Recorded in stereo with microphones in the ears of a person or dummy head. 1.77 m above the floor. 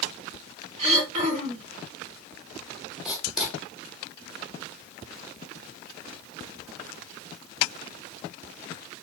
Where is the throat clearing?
45° right (ahead or behind), 1.0 m.